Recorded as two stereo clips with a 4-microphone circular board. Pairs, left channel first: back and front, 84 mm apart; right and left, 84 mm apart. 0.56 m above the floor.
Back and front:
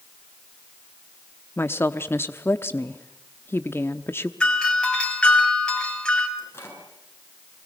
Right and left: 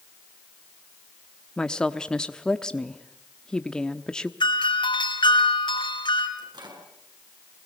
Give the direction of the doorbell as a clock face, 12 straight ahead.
3 o'clock.